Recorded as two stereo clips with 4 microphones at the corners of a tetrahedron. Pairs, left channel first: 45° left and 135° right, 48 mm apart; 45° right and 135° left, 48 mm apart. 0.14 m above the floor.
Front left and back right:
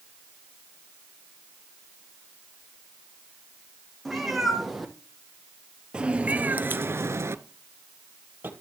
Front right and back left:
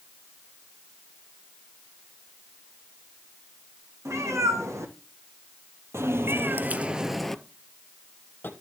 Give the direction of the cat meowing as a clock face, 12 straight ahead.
8 o'clock.